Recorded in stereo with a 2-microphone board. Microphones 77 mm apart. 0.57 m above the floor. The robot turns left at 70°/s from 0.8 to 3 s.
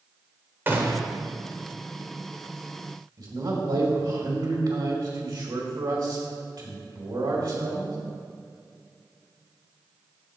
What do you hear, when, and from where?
0.7 s a gunshot: 30° right (ahead or behind), 1.0 m; by 1.0 s 45° right (ahead or behind), 1.0 m
3.2 s a man speaking: 70° right (ahead or behind), 2 m